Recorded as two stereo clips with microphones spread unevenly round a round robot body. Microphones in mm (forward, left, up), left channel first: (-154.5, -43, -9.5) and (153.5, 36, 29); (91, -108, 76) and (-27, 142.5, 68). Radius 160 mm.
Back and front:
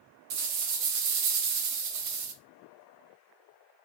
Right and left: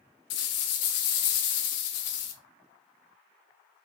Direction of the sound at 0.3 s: 25° right.